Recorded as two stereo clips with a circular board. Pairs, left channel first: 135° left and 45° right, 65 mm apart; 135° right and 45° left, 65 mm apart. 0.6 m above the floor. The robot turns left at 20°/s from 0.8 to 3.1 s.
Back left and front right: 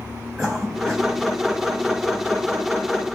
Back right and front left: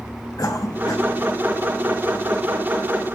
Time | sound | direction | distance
0.4 | a cough | 135° right | 3.5 m